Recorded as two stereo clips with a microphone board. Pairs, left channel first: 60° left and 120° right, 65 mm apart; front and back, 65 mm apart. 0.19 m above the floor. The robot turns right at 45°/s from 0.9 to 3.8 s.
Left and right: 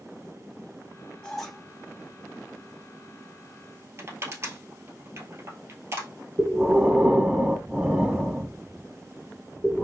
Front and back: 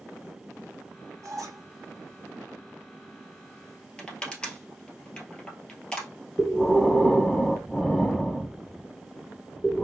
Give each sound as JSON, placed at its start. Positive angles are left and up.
{"t": 1.2, "sound": "a squeak", "azimuth_deg": 140, "distance_m": 1.4}
{"t": 4.0, "sound": "crushing", "azimuth_deg": -75, "distance_m": 1.4}
{"t": 6.4, "sound": "breathing", "azimuth_deg": -75, "distance_m": 0.5}